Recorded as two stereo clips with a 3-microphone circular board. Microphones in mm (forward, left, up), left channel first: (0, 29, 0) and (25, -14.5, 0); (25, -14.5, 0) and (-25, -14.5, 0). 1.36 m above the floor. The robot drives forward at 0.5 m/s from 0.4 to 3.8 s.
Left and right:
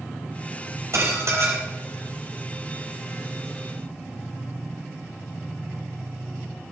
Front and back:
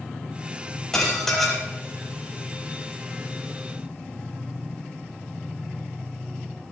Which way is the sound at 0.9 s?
80° right.